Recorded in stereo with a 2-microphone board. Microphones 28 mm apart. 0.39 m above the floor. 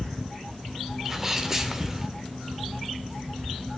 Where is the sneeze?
15° right (ahead or behind), 1.2 m.